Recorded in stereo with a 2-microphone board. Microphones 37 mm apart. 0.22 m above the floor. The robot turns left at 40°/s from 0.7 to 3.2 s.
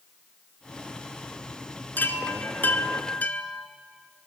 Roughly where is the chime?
Left.